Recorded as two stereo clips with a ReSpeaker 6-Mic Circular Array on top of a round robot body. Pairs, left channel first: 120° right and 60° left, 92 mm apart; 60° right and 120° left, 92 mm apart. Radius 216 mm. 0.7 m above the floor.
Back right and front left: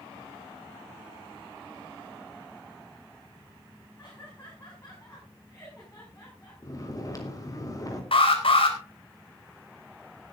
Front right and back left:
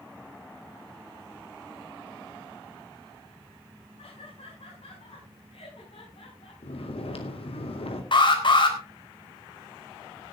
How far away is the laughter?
About 6 m.